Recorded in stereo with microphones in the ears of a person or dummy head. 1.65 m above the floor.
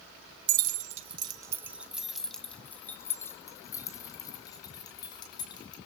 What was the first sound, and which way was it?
Keys jangling, 60° right (ahead or behind).